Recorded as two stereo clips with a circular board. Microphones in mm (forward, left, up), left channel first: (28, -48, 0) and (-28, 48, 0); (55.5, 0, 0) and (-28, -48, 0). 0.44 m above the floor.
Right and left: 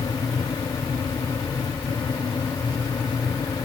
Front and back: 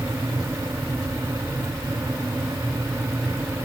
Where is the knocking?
I don't hear knocking.